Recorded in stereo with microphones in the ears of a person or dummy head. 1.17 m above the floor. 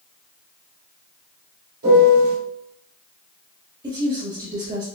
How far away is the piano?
About 1.8 m.